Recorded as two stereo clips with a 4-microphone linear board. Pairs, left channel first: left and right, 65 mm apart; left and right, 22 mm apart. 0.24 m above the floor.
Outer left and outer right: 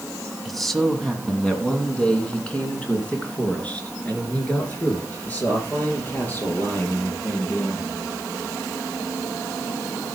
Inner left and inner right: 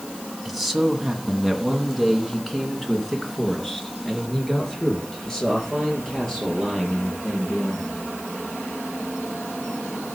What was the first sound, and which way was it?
A man speaking, centre (ahead or behind).